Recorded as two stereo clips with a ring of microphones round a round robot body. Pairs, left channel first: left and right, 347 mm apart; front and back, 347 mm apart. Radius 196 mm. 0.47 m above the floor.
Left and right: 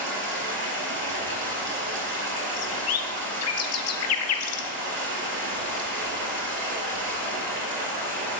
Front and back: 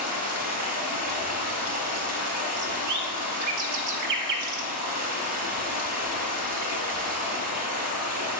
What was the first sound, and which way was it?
Running water, 155° right.